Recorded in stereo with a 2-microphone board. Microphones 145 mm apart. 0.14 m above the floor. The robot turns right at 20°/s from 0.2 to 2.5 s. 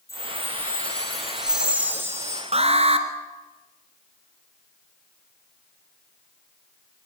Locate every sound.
0.1 s a chime: 160° left, 4.5 m; by 2.4 s 155° right, 4.5 m
2.5 s an alarm: 45° right (ahead or behind), 2 m